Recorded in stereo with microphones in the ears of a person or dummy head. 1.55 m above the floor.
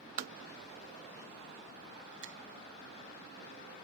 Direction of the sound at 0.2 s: 55° right (ahead or behind).